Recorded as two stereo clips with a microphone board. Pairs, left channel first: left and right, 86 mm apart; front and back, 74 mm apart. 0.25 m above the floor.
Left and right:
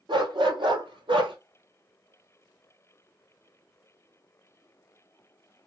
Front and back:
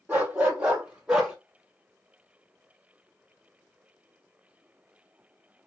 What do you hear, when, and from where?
0.1 s a dog barking: 110° right, 2.5 m; by 1.4 s 100° right, 1.8 m